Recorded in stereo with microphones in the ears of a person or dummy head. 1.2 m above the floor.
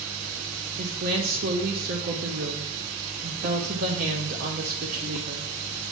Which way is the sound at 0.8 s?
45° right (ahead or behind).